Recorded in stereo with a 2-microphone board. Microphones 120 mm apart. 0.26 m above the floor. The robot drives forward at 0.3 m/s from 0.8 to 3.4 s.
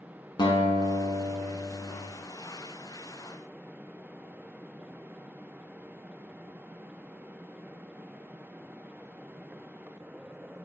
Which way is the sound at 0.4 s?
40° left (ahead or behind).